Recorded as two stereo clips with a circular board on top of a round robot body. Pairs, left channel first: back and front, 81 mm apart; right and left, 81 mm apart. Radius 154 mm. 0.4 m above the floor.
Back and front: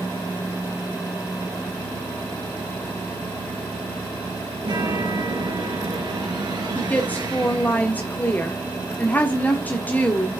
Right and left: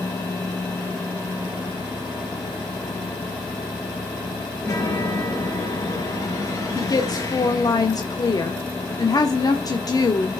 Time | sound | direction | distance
4.6 | a chime | 40° right | 4.5 m
6.8 | a woman speaking | 115° right | 1.6 m